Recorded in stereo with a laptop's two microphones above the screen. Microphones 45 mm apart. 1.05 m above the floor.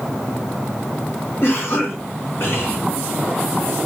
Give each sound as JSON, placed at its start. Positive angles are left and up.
{"t": 1.4, "sound": "a cough", "side_deg": 60, "distance_m": 1.9}